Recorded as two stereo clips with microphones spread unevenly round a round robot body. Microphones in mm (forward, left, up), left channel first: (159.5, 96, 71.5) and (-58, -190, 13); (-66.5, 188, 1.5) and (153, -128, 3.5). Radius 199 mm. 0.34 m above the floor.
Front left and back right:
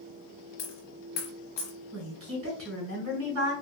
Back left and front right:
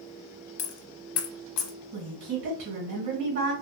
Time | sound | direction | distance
0.6 | a dropped coin | 120° left | 0.9 m
1.9 | a woman speaking | 105° right | 2 m